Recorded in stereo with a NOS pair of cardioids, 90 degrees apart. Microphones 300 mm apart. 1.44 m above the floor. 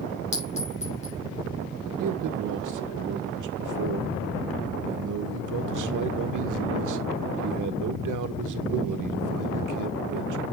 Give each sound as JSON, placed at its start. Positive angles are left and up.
{"t": 0.3, "sound": "a clink", "azimuth_deg": 20, "distance_m": 7.0}
{"t": 2.0, "sound": "a man speaking", "azimuth_deg": -70, "distance_m": 1.5}